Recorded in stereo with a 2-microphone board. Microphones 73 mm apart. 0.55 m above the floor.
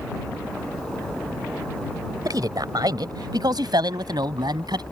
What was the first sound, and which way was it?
A man speaking, 60° right (ahead or behind).